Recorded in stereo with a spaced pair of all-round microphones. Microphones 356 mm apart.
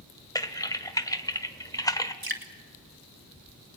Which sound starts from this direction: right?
Dripping, at 2.2 s.